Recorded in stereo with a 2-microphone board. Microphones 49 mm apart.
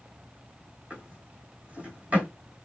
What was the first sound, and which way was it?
A drawer, 30° right (ahead or behind).